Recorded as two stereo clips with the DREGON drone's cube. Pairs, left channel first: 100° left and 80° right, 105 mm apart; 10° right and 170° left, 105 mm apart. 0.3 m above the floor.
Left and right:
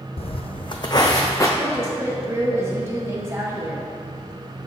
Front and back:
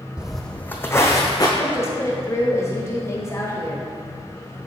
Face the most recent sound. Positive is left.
turn(degrees=-45)